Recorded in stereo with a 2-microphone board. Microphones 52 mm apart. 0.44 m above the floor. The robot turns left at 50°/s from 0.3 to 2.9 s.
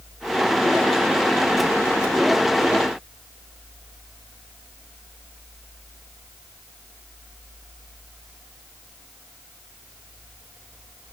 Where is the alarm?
I don't hear an alarm.